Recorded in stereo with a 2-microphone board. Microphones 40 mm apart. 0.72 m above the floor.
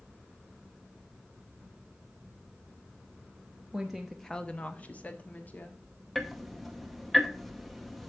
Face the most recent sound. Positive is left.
turn(degrees=5)  # may be behind; listen again after turning